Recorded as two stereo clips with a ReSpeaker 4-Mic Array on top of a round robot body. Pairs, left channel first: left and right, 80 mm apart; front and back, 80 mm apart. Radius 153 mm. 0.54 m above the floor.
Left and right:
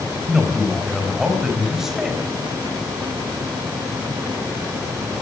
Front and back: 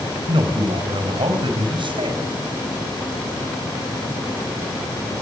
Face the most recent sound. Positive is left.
turn(degrees=-175)